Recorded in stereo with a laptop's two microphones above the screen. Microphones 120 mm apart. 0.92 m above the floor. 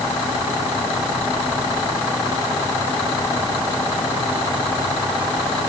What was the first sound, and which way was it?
Only background noise.